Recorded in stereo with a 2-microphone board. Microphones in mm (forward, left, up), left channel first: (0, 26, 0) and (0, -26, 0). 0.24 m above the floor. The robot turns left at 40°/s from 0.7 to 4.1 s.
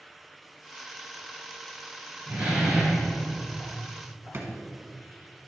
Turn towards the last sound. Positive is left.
turn(degrees=-45)  # may be behind; listen again after turning